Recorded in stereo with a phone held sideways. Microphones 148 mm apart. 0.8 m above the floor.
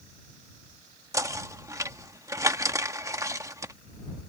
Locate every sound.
1.1 s knocking: 20° right (ahead or behind)